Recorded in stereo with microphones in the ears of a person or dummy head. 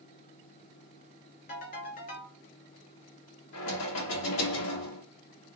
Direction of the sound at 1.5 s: 45° left (ahead or behind).